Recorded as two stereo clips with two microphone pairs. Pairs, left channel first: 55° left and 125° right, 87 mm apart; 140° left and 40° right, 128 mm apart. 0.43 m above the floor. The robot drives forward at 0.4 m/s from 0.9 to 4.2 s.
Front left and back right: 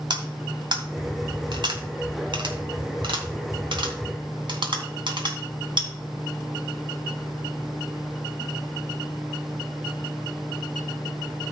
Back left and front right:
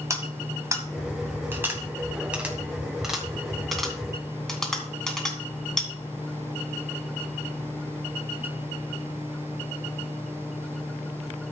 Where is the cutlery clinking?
105° right, 1.9 m; by 5.9 s 135° right, 2.5 m.